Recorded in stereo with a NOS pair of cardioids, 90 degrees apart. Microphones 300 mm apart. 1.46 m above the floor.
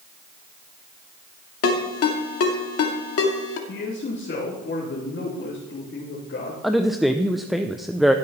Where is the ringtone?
50° left, 2.5 m.